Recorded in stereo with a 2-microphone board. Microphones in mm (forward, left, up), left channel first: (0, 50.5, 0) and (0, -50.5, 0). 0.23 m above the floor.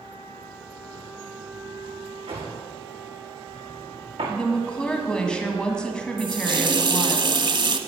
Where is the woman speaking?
10° left (ahead or behind), 2.0 m.